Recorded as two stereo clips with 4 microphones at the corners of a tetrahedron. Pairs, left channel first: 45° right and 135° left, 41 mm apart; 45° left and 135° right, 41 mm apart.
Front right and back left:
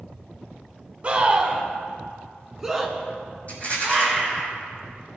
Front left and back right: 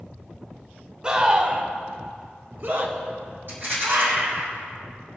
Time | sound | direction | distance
1.0 | a scream | 170° left | 1.3 m
3.5 | a rattle | 100° right | 4.5 m